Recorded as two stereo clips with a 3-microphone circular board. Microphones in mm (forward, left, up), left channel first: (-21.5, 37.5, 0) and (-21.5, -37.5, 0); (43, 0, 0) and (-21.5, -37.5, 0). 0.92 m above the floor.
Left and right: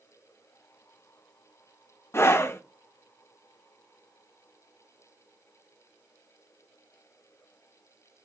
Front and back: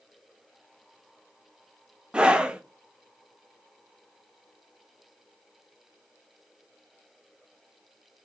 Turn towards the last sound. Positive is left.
turn(degrees=140)